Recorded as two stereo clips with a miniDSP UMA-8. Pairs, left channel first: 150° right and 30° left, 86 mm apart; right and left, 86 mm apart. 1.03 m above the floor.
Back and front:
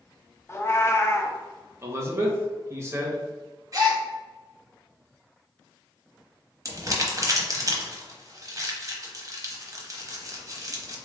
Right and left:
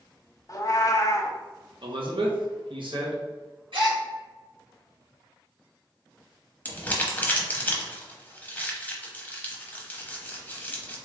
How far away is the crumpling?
About 0.9 m.